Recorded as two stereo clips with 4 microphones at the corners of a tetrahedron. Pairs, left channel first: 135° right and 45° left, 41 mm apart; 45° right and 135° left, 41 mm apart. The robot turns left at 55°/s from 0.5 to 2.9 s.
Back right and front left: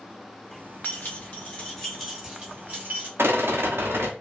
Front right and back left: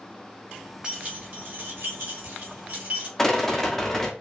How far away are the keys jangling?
About 1.5 m.